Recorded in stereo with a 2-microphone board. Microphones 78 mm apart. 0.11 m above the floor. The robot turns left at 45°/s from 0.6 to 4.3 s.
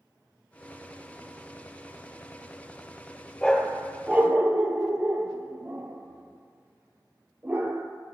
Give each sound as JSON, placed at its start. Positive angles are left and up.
{"t": 3.4, "sound": "a dog barking", "side_deg": 10, "distance_m": 0.7}